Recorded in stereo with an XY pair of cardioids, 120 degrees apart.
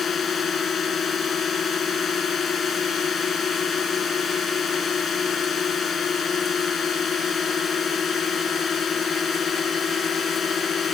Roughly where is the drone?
Ahead left.